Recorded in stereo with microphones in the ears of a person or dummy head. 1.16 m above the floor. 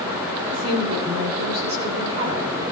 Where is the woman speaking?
45° right (ahead or behind), 2.5 m.